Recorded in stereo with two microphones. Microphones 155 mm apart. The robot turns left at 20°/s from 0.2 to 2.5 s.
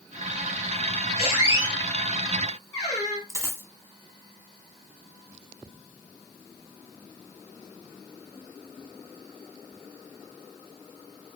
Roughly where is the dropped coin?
Centre.